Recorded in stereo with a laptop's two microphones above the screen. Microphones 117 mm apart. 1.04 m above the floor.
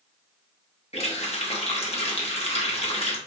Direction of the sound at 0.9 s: 60° left (ahead or behind).